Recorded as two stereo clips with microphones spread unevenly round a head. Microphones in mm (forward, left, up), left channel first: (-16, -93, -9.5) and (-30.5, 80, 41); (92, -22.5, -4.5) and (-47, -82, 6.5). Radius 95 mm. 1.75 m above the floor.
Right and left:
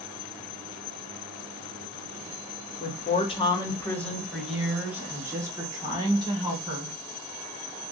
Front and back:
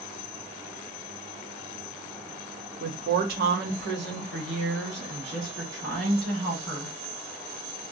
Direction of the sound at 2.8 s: 135° right.